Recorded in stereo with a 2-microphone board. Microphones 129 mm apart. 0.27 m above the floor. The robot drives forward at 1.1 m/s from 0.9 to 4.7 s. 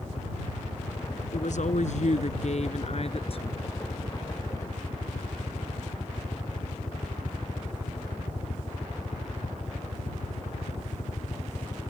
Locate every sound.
0.0 s a helicopter: 55° left (ahead or behind); by 11.9 s 60° left (ahead or behind)
1.3 s a woman speaking: 70° left (ahead or behind); by 3.6 s 45° left (ahead or behind)